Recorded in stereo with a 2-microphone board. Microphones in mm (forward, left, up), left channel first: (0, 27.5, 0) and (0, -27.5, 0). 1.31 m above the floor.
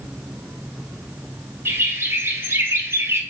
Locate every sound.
1.6 s a bird: 45° right (ahead or behind), 0.6 m